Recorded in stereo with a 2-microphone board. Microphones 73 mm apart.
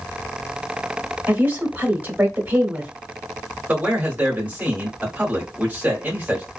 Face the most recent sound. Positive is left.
turn(degrees=-25)  # may be behind; listen again after turning